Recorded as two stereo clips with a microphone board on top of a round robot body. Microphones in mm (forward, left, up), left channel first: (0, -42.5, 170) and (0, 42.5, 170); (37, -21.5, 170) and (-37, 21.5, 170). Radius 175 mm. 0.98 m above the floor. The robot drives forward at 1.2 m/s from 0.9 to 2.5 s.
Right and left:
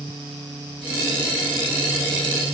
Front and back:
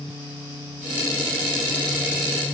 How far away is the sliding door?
No sliding door in this recording.